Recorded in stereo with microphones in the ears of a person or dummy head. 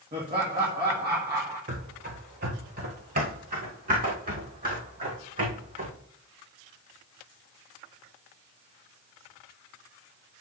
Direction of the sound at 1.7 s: 40° right (ahead or behind).